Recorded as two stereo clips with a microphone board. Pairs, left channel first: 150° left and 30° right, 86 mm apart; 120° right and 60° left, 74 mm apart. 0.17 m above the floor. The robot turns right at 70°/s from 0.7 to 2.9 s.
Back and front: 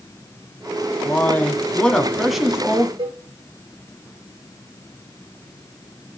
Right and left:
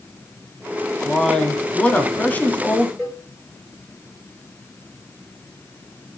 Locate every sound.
1.1 s a man speaking: 155° left, 1.1 m; by 2.9 s 75° right, 1.1 m
3.0 s a cowbell: 20° right, 7.5 m